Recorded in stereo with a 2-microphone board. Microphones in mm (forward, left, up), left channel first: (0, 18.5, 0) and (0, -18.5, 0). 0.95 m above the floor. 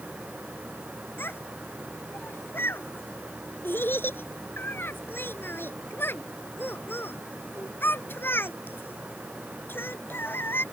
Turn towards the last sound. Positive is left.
turn(degrees=70)  # may be behind; listen again after turning